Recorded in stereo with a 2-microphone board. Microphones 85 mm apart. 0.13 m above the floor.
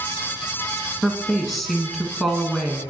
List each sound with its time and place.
1.0 s a woman speaking: centre (ahead or behind), 1.1 m